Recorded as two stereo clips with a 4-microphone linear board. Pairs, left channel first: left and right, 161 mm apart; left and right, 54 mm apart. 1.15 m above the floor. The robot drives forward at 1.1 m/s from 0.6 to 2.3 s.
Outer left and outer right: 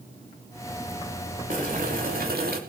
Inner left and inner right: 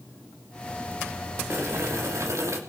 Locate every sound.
1.5 s boiling: 60° right (ahead or behind), 3.5 m; by 2.6 s 75° right (ahead or behind), 3 m